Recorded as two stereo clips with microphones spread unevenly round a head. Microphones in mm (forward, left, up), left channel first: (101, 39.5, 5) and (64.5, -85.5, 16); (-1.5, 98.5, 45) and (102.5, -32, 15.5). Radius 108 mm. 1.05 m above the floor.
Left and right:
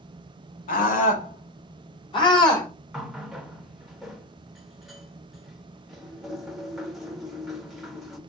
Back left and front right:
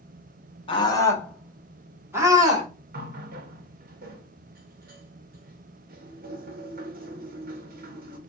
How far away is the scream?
About 1.6 m.